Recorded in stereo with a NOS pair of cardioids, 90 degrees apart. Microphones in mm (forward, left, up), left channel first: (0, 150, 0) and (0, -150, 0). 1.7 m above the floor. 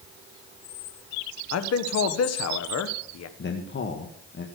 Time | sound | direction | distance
1.5 | a man speaking | 55° left | 1.5 m
3.4 | a man speaking | 40° left | 1.9 m